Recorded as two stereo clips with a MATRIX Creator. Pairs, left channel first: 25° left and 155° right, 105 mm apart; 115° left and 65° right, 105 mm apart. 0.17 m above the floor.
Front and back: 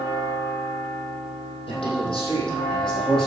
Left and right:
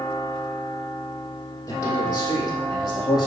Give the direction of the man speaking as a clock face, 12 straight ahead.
10 o'clock.